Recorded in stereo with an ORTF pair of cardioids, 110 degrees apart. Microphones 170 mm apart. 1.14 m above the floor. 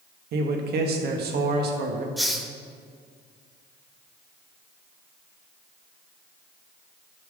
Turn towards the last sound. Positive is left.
turn(degrees=0)